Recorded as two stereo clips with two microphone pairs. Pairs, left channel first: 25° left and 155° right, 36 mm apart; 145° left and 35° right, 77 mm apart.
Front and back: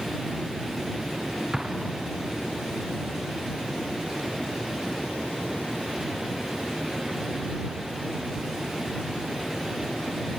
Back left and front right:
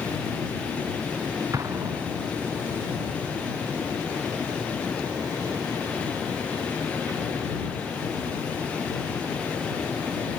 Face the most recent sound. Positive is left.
turn(degrees=-80)